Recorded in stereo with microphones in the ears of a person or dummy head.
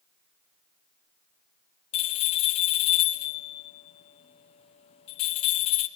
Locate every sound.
1.9 s a bell: 40° left (ahead or behind), 0.6 m